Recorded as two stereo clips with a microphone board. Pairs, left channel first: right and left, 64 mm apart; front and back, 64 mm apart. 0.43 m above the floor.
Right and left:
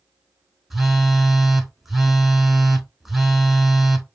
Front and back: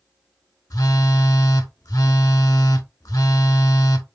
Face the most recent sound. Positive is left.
turn(degrees=5)